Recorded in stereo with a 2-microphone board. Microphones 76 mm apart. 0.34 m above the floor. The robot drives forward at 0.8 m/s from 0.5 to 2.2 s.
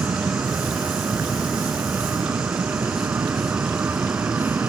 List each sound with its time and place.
0.0 s an aircraft: 25° right (ahead or behind)